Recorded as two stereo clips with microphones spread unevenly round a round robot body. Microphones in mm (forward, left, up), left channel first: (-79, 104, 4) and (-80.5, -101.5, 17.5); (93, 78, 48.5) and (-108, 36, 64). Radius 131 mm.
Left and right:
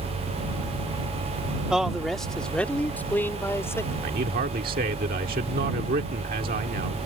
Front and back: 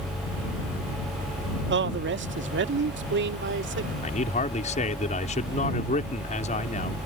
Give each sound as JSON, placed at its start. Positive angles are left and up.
{"t": 1.7, "sound": "a man speaking", "azimuth_deg": 180}
{"t": 4.0, "sound": "a man speaking", "azimuth_deg": -40}